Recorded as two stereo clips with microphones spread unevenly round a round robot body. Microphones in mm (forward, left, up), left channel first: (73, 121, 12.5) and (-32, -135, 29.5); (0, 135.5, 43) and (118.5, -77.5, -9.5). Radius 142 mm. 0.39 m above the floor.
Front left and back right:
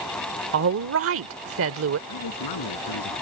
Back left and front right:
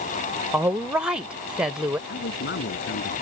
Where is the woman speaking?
135° right.